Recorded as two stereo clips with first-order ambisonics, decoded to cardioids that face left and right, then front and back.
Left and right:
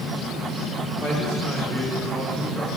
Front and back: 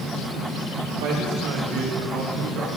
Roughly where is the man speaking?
Behind.